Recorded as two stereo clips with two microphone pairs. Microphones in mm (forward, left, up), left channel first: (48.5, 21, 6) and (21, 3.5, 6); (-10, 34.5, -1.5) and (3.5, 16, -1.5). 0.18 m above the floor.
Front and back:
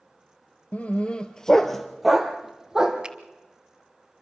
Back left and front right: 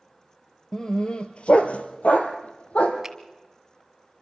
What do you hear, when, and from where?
0.7 s a dog barking: 65° left, 1.3 m; by 3.0 s 140° left, 2.5 m
3.0 s a finger snap: 120° right, 1.2 m